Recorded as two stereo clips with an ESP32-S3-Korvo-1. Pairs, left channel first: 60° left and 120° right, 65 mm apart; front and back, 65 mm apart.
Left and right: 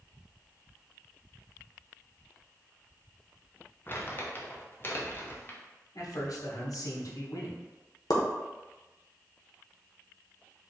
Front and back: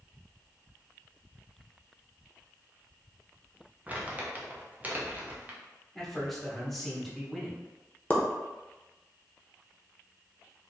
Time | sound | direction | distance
3.9 | crumpling | 115° left | 0.7 m
6.0 | a man speaking | 85° left | 1.0 m
8.1 | a pop | 65° left | 0.7 m